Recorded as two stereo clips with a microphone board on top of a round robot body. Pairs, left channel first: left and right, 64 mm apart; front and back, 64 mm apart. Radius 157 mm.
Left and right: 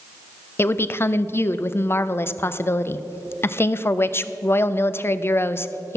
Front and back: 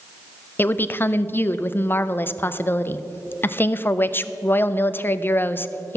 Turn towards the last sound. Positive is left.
turn(degrees=50)